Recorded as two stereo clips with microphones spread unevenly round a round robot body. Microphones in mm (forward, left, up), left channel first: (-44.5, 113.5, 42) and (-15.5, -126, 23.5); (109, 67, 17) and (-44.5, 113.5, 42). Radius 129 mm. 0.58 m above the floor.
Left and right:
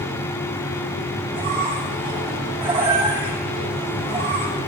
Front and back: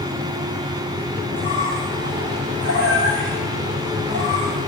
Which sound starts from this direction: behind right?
A squeak, at 1.3 s.